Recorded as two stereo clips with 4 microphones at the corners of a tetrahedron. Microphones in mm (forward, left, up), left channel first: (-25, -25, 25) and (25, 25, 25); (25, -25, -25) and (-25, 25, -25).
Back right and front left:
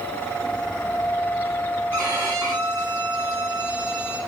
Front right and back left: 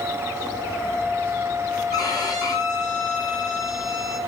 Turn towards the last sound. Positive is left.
turn(degrees=-10)